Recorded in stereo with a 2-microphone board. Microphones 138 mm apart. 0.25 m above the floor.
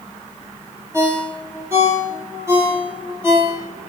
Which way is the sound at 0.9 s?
20° right (ahead or behind).